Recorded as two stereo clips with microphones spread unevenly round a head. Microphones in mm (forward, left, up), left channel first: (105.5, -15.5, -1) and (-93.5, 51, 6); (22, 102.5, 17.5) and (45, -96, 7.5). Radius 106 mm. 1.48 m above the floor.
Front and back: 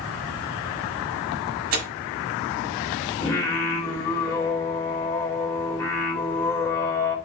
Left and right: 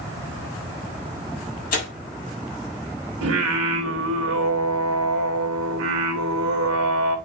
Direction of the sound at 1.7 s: 150° left.